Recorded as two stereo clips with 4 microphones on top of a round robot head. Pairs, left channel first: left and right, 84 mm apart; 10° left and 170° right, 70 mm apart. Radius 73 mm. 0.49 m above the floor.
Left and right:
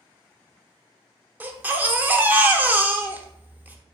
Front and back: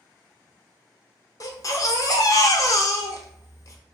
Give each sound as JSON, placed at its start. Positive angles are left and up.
{"t": 1.4, "sound": "a baby crying", "azimuth_deg": -25, "distance_m": 0.6}